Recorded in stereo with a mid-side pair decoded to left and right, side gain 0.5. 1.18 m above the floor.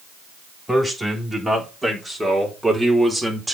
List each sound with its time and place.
0.7 s a man speaking: straight ahead, 4 m; by 3.5 s 15° right, 2.5 m